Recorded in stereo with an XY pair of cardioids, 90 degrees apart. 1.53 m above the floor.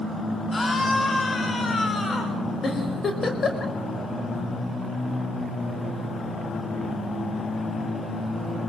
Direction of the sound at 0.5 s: 25° left.